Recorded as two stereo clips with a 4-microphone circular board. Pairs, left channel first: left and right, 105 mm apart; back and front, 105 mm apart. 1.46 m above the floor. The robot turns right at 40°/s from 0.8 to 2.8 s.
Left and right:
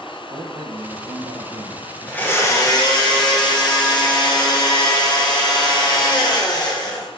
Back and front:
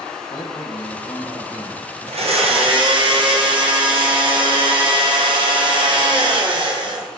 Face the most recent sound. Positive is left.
turn(degrees=40)